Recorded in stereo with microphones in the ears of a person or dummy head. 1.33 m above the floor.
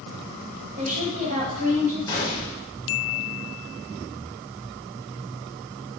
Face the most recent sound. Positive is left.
turn(degrees=20)  # may be behind; listen again after turning